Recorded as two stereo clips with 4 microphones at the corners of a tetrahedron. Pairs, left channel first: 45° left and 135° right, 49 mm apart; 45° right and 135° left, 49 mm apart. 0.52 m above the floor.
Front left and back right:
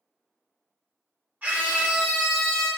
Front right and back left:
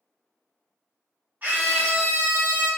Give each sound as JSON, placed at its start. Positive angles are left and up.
{"t": 1.4, "sound": "a scream", "azimuth_deg": 180, "distance_m": 1.2}